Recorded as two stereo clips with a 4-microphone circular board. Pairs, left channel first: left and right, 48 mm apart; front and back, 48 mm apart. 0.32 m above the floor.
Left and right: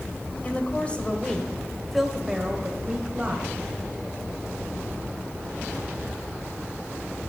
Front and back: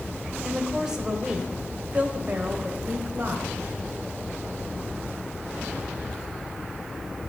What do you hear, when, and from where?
0.4 s a woman speaking: 105° left, 1.6 m; by 3.5 s 150° right, 2.0 m